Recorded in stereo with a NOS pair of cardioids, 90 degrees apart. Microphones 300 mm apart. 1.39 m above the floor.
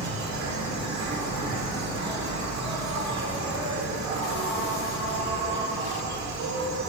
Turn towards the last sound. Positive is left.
turn(degrees=-65)